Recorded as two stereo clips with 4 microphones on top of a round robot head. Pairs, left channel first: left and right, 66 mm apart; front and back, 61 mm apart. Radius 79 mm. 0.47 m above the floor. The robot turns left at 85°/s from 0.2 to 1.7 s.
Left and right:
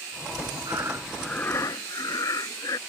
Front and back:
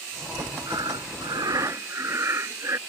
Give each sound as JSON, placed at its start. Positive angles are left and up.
{"t": 0.7, "sound": "breathing", "azimuth_deg": -135}